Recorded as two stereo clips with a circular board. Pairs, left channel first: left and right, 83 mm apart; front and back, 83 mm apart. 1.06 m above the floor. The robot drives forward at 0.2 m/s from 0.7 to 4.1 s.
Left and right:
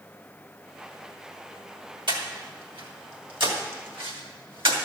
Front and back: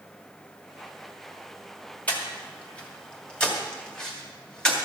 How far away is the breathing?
About 2.5 m.